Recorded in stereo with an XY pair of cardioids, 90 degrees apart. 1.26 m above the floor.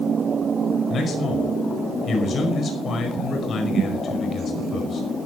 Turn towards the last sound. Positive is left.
turn(degrees=60)